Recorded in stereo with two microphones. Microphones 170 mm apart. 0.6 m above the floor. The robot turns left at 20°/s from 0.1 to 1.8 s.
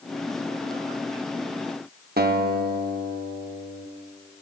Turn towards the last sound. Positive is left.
turn(degrees=-60)  # may be behind; listen again after turning